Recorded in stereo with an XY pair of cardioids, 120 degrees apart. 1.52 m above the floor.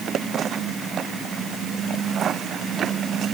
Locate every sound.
Only background noise.